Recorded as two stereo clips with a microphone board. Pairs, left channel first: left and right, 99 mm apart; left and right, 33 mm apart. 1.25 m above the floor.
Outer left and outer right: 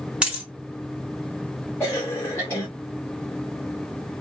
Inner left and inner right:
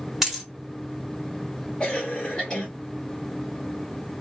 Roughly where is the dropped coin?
Centre.